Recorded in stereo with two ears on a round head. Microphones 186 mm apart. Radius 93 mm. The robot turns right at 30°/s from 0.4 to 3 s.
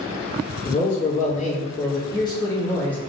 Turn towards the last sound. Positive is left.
turn(degrees=170)